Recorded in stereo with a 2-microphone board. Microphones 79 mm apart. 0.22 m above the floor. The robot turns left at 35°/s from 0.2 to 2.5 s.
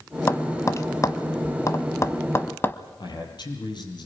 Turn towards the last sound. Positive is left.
turn(degrees=65)  # may be behind; listen again after turning